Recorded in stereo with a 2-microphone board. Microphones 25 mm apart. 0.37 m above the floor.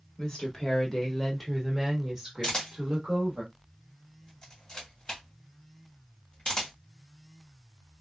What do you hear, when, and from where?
0.2 s a woman speaking: 40° left (ahead or behind), 1.3 m; by 3.4 s 40° right (ahead or behind), 1.3 m
2.4 s a camera shutter: 35° left (ahead or behind), 1.7 m